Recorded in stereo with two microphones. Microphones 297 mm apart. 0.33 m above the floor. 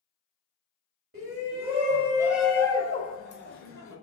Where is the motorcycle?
No motorcycle in this recording.